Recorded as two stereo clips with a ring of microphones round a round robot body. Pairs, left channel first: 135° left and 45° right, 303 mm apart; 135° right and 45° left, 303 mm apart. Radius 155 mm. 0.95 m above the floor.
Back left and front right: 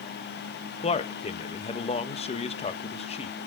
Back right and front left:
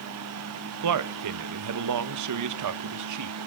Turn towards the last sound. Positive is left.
turn(degrees=65)